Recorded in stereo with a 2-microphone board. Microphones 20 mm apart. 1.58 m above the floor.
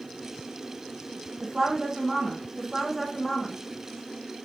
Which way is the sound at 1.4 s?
40° right (ahead or behind).